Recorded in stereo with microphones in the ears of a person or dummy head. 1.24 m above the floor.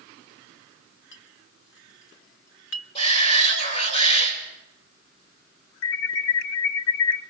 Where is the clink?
75° left (ahead or behind), 1.2 m.